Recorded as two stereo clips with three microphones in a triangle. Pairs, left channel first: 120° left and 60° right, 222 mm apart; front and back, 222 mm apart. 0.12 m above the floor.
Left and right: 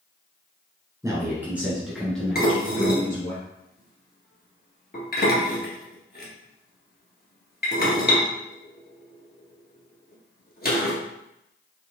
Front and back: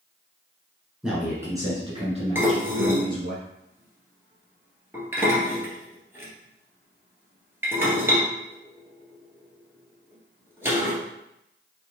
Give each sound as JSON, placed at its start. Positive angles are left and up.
{"t": 1.0, "sound": "a man speaking", "azimuth_deg": -100, "distance_m": 1.2}
{"t": 2.4, "sound": "dishes clattering", "azimuth_deg": 105, "distance_m": 1.5}